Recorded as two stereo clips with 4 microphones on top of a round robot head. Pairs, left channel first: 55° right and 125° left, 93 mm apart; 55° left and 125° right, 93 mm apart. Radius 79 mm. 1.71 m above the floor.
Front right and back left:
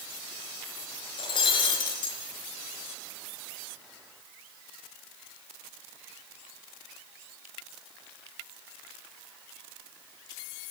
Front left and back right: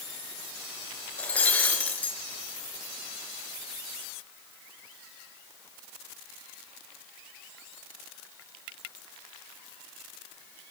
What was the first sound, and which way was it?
Breaking glass, 20° right.